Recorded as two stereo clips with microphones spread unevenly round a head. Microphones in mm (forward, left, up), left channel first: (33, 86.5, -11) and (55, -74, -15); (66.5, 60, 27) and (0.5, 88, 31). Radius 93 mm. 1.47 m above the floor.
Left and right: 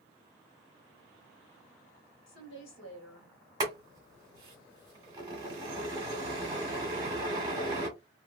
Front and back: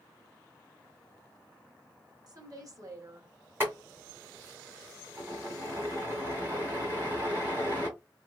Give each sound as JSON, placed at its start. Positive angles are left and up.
{"t": 2.3, "sound": "a woman speaking", "azimuth_deg": 120, "distance_m": 1.6}
{"t": 3.6, "sound": "boiling", "azimuth_deg": -145, "distance_m": 1.7}